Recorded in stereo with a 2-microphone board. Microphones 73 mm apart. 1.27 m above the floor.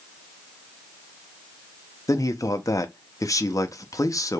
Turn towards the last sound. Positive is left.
turn(degrees=45)  # may be behind; listen again after turning